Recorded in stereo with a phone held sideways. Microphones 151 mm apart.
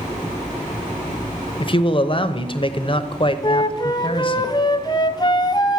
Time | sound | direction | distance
1.6 | a man speaking | 40° left (ahead or behind) | 0.7 m
3.4 | a flute | 30° left (ahead or behind) | 0.5 m